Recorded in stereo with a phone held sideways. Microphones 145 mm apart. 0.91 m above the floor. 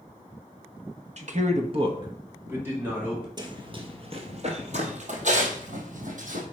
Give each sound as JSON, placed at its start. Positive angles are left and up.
{"t": 1.2, "sound": "a man speaking", "side_deg": -50, "distance_m": 1.0}
{"t": 3.4, "sound": "running footsteps", "side_deg": -30, "distance_m": 1.2}